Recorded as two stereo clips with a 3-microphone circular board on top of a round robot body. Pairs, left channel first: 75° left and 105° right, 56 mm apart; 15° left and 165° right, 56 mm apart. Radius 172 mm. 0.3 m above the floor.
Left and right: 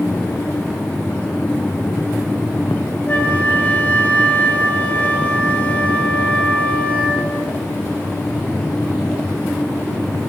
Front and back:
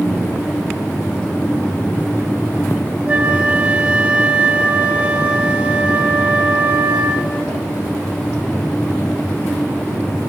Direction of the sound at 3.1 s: 135° left.